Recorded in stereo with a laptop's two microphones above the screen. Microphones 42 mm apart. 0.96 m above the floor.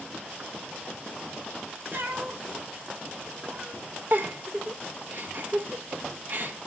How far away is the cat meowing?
About 1.4 m.